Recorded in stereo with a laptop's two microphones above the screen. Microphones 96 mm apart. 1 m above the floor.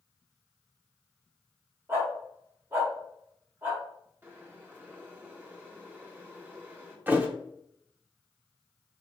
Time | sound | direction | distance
1.9 | a dog barking | 25° right (ahead or behind) | 1.6 m
4.2 | boiling | 20° right (ahead or behind) | 1.2 m
7.1 | a thud | 20° right (ahead or behind) | 0.6 m